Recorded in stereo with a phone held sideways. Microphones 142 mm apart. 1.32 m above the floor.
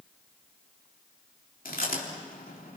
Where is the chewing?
75° left (ahead or behind), 3.5 m.